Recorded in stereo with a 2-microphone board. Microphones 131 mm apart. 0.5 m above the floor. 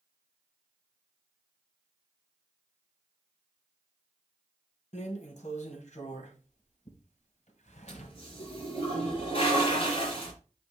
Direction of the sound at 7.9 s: 50° left (ahead or behind).